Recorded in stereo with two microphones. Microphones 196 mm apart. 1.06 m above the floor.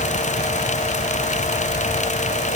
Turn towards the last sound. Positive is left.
No sound to turn to.